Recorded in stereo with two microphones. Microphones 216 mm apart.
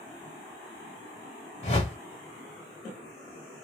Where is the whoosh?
35° left (ahead or behind), 1.1 m.